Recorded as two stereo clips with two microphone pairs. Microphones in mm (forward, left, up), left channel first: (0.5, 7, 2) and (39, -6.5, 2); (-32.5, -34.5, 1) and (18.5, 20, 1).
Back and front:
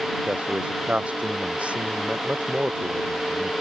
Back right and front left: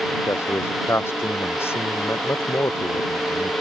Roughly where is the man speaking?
Right.